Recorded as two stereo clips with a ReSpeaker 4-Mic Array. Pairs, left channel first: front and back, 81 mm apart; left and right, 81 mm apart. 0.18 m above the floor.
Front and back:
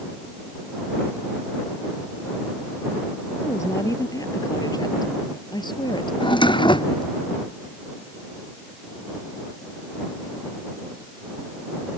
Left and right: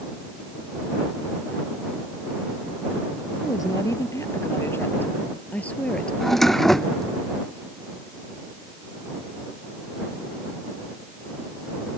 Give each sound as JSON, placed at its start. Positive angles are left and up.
{"t": 3.4, "sound": "a woman speaking", "azimuth_deg": 50}
{"t": 6.2, "sound": "a drawer", "azimuth_deg": 5}